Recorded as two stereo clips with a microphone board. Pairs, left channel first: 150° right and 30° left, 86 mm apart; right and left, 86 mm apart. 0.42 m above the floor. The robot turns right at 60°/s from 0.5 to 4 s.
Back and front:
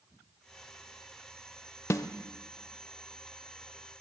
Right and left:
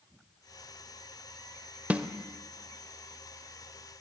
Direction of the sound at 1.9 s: 160° left.